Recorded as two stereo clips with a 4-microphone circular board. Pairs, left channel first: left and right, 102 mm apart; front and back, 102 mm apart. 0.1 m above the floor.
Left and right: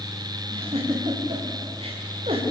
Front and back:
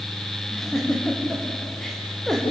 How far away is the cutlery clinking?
I don't hear cutlery clinking.